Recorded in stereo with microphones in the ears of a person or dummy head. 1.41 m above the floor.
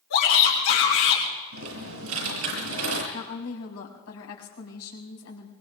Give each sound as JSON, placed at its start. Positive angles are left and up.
{"t": 0.1, "sound": "a shout", "side_deg": 85, "distance_m": 6.0}
{"t": 1.5, "sound": "typing on a keyboard", "side_deg": -85, "distance_m": 7.5}
{"t": 3.1, "sound": "a woman speaking", "side_deg": 85, "distance_m": 4.5}